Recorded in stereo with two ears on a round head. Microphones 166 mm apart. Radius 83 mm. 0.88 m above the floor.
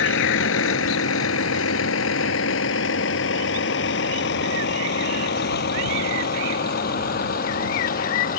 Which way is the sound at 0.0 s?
75° left (ahead or behind).